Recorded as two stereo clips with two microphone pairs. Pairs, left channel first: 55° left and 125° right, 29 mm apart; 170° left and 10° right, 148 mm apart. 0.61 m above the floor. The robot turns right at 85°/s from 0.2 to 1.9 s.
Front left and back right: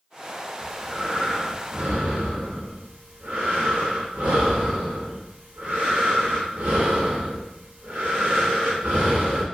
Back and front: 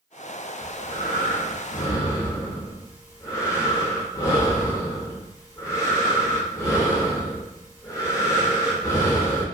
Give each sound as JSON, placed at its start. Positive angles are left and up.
{"t": 0.6, "sound": "breathing", "azimuth_deg": 130, "distance_m": 0.9}